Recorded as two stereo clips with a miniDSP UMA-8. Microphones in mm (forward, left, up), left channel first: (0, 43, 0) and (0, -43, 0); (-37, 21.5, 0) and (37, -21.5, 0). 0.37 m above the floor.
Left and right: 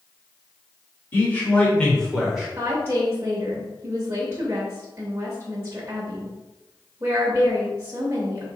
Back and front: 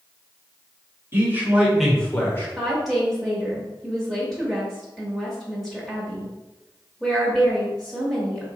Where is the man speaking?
25° left, 1.6 m; by 2.5 s 170° right, 1.2 m.